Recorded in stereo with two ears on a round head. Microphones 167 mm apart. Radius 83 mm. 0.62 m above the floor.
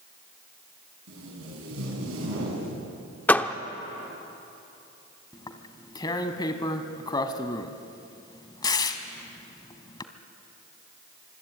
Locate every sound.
1.1 s tape being pulled: 80° right, 7 m
3.3 s a door slam: 10° left (ahead or behind), 0.8 m
5.3 s tearing paper: 20° left (ahead or behind), 1.3 m